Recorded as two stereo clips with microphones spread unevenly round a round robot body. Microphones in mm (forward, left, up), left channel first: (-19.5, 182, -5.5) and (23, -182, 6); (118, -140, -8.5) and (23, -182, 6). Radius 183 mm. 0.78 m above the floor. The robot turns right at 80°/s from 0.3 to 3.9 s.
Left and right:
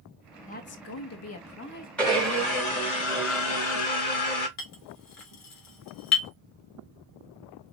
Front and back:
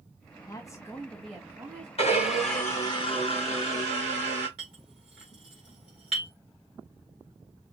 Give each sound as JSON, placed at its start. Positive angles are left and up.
{"t": 0.5, "sound": "a woman speaking", "azimuth_deg": 40, "distance_m": 1.2}
{"t": 2.0, "sound": "a blender", "azimuth_deg": 10, "distance_m": 3.5}
{"t": 4.6, "sound": "a clink", "azimuth_deg": 145, "distance_m": 1.9}